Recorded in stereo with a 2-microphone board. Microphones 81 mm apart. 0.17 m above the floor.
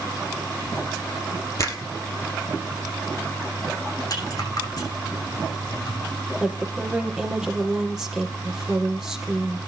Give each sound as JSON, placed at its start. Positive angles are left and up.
{"t": 1.6, "sound": "a finger snap", "side_deg": 40, "distance_m": 3.0}
{"t": 4.1, "sound": "a rattle", "side_deg": 50, "distance_m": 6.5}
{"t": 6.4, "sound": "a woman speaking", "side_deg": -10, "distance_m": 5.0}